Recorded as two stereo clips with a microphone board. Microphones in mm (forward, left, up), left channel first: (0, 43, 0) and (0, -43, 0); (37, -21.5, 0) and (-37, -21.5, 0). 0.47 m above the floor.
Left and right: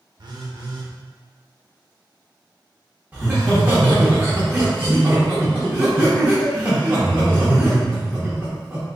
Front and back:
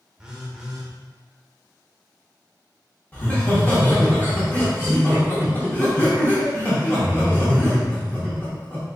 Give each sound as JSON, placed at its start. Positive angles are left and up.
{"t": 0.2, "sound": "a phone buzzing", "azimuth_deg": -100, "distance_m": 0.6}
{"t": 3.1, "sound": "laughter", "azimuth_deg": -40, "distance_m": 1.0}